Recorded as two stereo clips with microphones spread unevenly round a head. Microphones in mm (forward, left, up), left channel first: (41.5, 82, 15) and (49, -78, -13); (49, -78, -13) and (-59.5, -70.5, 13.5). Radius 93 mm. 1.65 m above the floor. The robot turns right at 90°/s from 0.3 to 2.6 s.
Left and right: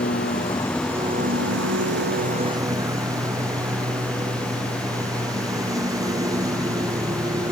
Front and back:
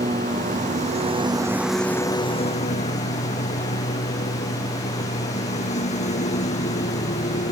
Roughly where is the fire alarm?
I don't hear a fire alarm.